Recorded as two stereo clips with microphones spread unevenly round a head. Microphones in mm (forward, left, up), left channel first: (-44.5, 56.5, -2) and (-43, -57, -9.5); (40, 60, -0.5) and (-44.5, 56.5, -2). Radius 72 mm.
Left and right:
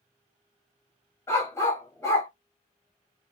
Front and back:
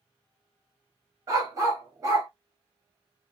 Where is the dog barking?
145° left, 1.5 m.